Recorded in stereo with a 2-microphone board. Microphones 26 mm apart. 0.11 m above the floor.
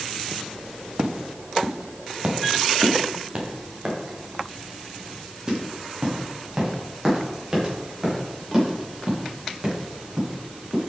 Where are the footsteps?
60° right (ahead or behind), 1.9 m; by 10.8 s 20° right (ahead or behind), 9 m.